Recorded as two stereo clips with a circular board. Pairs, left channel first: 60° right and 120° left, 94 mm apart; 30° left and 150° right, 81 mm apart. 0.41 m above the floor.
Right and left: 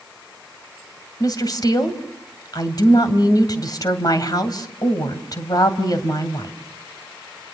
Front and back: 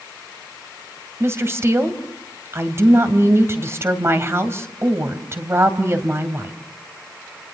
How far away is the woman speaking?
About 2.5 m.